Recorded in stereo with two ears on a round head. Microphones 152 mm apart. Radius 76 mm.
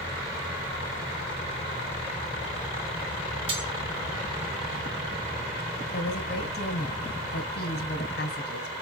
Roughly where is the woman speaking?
Left.